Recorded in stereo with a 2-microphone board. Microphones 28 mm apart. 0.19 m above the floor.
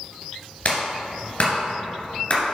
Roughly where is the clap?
Left.